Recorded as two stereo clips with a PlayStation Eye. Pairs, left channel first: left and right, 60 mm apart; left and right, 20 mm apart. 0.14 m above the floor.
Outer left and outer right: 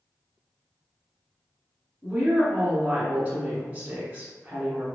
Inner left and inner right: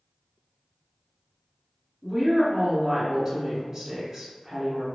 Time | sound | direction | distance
2.0 | a woman speaking | 20° right (ahead or behind) | 1.5 m